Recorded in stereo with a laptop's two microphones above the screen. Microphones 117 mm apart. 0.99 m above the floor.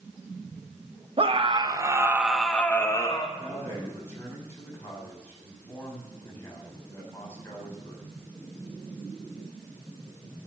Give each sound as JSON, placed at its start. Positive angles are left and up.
{"t": 1.2, "sound": "a scream", "side_deg": -50, "distance_m": 1.3}
{"t": 3.4, "sound": "a man speaking", "side_deg": 20, "distance_m": 6.5}